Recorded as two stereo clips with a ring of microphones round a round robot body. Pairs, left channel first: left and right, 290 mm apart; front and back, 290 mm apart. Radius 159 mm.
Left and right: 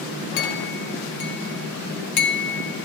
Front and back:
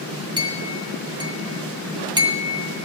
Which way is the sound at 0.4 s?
105° left.